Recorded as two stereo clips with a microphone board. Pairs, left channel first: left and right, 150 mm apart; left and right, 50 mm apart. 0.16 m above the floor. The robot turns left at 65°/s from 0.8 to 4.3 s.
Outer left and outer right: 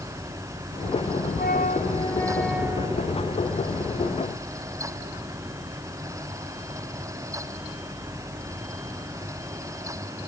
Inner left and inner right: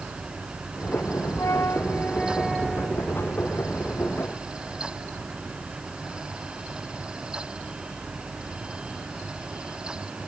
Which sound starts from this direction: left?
A flute, at 1.4 s.